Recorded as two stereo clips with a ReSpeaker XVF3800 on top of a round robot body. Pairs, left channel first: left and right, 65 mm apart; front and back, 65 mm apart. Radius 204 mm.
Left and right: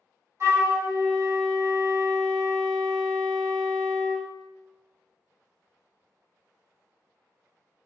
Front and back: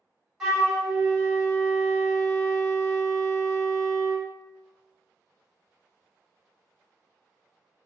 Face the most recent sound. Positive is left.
turn(degrees=-95)